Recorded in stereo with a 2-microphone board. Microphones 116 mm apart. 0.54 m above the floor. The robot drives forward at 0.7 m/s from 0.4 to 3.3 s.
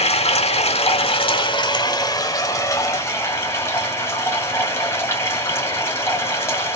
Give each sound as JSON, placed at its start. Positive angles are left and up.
{"t": 0.0, "sound": "running water", "side_deg": 60, "distance_m": 1.0}